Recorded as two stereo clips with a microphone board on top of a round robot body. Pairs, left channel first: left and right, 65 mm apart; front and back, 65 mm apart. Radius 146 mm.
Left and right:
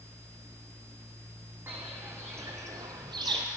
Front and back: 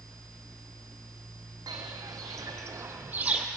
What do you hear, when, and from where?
1.7 s footsteps: 155° right, 1.3 m; by 3.5 s 100° right, 0.6 m